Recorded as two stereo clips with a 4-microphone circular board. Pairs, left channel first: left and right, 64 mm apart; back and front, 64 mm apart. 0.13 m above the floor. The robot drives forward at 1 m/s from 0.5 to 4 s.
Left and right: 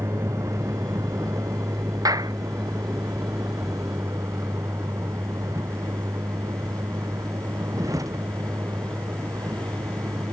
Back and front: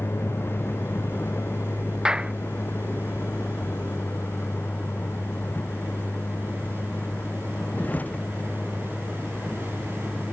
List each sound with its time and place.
0.0 s a vehicle: 130° right; by 10.3 s 115° right
2.0 s a clap: 80° right